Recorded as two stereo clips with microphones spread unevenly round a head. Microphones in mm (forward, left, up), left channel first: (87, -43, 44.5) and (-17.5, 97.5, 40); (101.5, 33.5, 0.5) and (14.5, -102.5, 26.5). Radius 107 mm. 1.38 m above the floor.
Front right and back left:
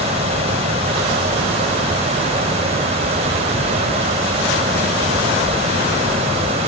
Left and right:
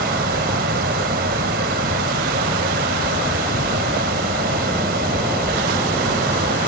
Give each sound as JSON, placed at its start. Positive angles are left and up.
{"t": 0.0, "sound": "a fan", "azimuth_deg": -170}